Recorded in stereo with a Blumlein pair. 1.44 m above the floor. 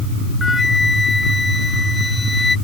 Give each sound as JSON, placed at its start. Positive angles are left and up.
{"t": 0.4, "sound": "a flute", "azimuth_deg": 10}